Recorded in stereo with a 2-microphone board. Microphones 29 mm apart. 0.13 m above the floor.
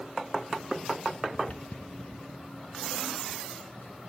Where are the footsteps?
40° left (ahead or behind), 0.8 m; by 4.1 s 90° left, 3.5 m.